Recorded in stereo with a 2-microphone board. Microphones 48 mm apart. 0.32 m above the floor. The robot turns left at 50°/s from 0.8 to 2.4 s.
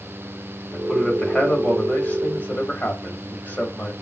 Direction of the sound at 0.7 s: 160° left.